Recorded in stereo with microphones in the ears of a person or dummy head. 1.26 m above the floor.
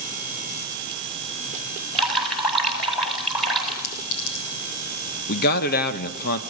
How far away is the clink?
About 5.5 m.